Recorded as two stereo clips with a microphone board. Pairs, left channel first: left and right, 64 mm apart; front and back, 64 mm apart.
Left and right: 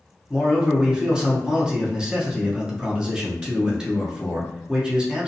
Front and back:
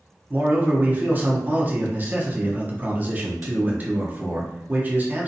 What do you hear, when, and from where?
0.3 s a man speaking: 155° right, 0.6 m